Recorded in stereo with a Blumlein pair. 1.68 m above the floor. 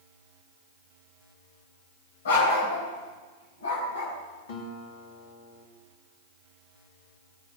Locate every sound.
2.2 s a dog barking: 65° left, 3.5 m; by 4.2 s 70° left, 4.5 m
4.5 s a guitar: 55° left, 2.5 m